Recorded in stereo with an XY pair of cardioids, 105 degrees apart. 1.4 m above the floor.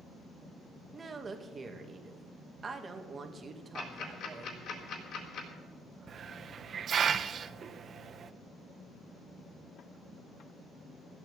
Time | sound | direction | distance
0.9 | a woman speaking | 35° right | 2 m
3.8 | ticking | 65° left | 3.5 m
6.1 | a hiss | 50° right | 0.8 m